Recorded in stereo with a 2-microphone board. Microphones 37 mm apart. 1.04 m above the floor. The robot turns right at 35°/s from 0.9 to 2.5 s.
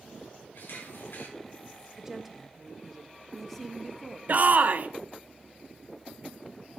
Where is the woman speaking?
15° right (ahead or behind), 1.0 m; by 4.2 s centre (ahead or behind), 1.0 m.